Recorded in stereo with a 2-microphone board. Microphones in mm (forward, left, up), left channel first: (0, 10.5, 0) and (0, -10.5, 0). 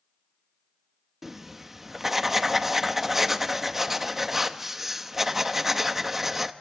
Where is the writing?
10° right (ahead or behind), 1.0 m.